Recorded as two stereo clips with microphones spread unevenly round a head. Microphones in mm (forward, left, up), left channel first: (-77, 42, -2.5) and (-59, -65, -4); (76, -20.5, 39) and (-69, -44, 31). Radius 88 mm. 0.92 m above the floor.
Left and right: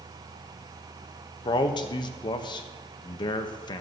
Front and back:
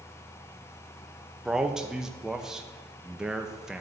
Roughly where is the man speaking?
Left.